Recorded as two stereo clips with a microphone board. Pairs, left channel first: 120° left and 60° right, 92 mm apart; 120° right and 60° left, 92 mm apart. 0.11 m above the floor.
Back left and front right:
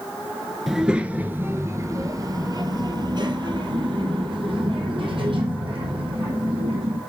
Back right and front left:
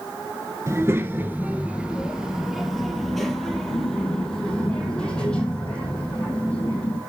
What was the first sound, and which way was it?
A child speaking, 25° left.